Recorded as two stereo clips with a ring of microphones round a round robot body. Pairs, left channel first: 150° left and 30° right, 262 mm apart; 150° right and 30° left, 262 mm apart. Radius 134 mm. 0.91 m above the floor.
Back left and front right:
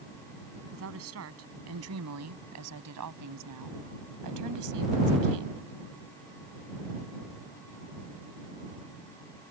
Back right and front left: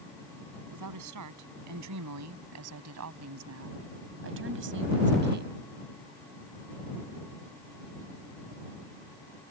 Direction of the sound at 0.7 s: 10° left.